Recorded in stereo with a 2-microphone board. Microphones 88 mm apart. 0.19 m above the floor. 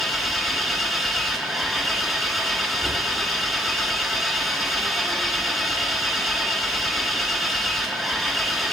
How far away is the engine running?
About 1.5 m.